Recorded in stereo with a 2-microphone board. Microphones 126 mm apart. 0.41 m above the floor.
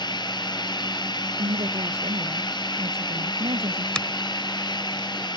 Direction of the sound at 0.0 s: 35° left (ahead or behind).